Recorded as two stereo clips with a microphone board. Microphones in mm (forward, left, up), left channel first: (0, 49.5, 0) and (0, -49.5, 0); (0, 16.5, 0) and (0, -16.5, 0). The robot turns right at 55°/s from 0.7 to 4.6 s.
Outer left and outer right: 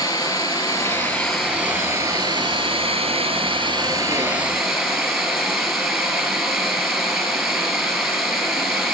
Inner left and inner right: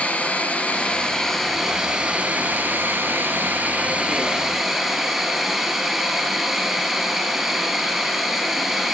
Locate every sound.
0.0 s running water: 145° left, 3 m; by 8.9 s straight ahead, 3 m